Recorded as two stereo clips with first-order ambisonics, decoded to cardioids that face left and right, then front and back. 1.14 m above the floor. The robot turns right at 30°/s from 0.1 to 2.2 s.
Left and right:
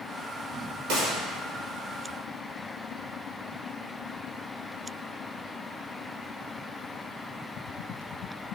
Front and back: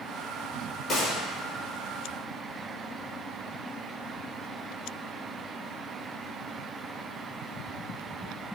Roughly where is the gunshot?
Right.